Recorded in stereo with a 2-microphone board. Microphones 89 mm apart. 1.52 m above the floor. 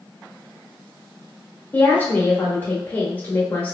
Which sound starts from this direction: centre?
A woman speaking, at 1.7 s.